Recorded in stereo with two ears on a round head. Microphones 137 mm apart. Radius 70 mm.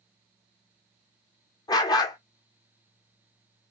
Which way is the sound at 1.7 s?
25° left (ahead or behind).